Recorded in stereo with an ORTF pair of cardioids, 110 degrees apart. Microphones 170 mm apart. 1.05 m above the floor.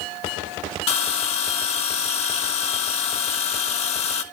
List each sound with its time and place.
0.9 s a bell: 40° left, 1.0 m